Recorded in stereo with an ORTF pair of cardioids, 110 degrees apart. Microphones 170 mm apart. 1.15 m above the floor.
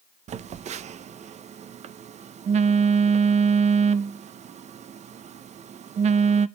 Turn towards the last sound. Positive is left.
turn(degrees=-45)